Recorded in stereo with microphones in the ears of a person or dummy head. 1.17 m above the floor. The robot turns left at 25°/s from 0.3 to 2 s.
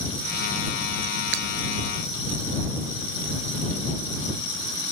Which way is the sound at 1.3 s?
70° right (ahead or behind).